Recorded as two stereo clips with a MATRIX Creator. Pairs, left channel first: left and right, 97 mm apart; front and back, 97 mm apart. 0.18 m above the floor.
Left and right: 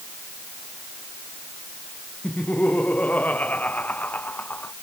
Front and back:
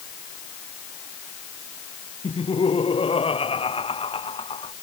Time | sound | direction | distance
2.2 | laughter | 15° left | ?